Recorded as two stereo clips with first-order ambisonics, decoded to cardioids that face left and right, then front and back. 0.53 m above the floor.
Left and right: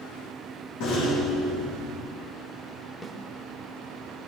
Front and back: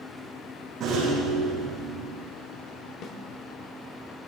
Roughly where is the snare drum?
Ahead.